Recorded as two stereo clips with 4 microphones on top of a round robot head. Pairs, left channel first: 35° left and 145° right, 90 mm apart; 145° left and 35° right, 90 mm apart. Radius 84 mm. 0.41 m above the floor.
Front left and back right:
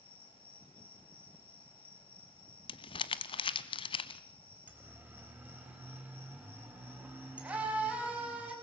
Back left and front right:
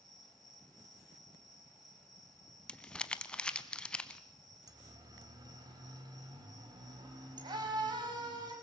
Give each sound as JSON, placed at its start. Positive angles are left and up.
{"t": 0.0, "sound": "an insect", "azimuth_deg": 55, "distance_m": 5.5}
{"t": 2.7, "sound": "crumpling", "azimuth_deg": 65, "distance_m": 0.8}
{"t": 4.7, "sound": "a siren", "azimuth_deg": -75, "distance_m": 3.0}